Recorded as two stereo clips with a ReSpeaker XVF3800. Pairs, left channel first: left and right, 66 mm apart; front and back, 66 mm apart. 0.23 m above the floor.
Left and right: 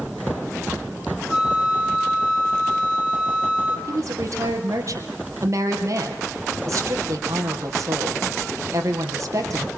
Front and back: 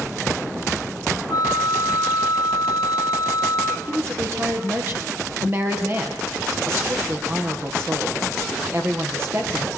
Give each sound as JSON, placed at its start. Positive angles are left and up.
{"t": 1.3, "sound": "a flute", "azimuth_deg": -5, "distance_m": 3.0}
{"t": 3.9, "sound": "a woman speaking", "azimuth_deg": -125, "distance_m": 5.5}